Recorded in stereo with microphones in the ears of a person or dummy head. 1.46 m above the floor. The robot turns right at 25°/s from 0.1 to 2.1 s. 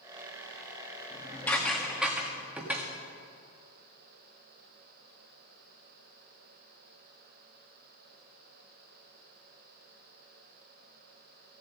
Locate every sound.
1.1 s dishes clattering: 15° left (ahead or behind), 1.6 m; by 2.9 s 5° right (ahead or behind), 1.6 m